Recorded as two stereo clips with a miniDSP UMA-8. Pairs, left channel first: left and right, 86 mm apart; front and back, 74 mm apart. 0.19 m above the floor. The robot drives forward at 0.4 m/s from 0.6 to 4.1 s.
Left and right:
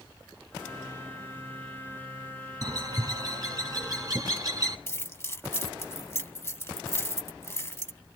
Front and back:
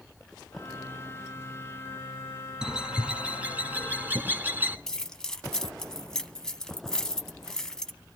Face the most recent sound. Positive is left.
turn(degrees=75)